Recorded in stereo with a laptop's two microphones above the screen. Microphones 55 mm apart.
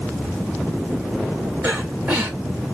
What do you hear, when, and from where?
1.6 s breathing: 40° right (ahead or behind), 3 m